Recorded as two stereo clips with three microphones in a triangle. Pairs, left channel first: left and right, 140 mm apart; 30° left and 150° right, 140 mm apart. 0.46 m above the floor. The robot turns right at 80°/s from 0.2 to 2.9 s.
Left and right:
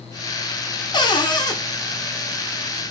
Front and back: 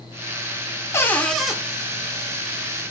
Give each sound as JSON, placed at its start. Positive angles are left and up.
{"t": 0.9, "sound": "a cupboard door", "azimuth_deg": 80, "distance_m": 0.5}